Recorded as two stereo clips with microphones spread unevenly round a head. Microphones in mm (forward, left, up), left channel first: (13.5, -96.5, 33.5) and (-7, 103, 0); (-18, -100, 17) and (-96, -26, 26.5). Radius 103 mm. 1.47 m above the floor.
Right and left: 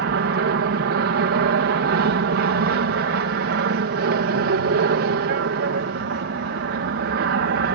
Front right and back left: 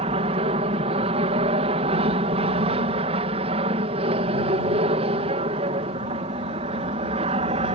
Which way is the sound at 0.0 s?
110° left.